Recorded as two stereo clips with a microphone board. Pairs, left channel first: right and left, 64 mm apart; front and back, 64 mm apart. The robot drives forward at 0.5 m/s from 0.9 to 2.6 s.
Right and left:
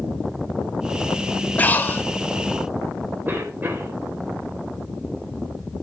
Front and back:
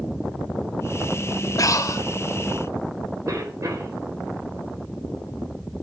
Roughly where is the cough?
Behind left.